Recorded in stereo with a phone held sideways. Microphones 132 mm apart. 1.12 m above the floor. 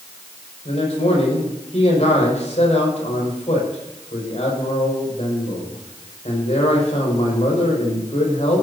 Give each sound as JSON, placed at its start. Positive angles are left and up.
{"t": 0.7, "sound": "a man speaking", "side_deg": 60, "distance_m": 6.0}